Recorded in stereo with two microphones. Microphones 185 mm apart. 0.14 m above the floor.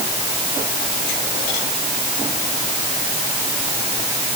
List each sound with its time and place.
Only background noise.